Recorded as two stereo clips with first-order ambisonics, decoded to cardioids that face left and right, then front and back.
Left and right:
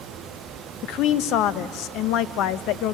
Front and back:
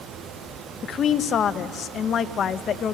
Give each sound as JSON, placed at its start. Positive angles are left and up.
{"t": 0.8, "sound": "a woman speaking", "azimuth_deg": 60, "distance_m": 0.5}